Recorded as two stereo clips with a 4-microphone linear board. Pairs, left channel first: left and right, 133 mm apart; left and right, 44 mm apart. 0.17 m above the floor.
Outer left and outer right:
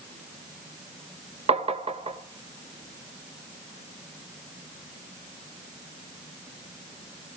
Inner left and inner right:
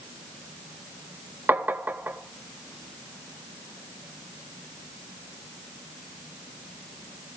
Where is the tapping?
55° right (ahead or behind), 0.5 m.